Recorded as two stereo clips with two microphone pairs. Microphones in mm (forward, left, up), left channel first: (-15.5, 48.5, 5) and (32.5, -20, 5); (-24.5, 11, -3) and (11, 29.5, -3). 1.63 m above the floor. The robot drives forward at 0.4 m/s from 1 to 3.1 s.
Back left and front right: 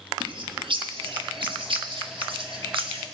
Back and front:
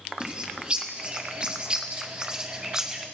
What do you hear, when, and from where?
0.2 s a bird: 35° right, 3.5 m; by 3.0 s 45° right, 2.5 m